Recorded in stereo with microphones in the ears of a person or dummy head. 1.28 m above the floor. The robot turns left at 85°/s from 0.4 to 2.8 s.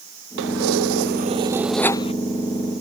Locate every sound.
0.4 s keys jangling: 65° right; by 2.1 s 145° left